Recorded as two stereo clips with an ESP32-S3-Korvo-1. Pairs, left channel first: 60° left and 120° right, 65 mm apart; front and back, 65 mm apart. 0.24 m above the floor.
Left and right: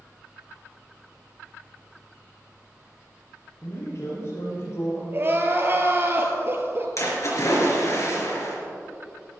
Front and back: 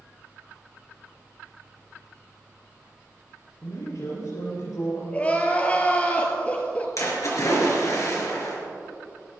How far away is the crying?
About 1.8 m.